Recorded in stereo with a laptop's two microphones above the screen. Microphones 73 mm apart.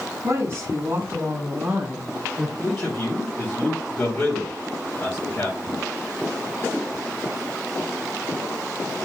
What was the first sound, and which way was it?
A woman speaking, 55° right (ahead or behind).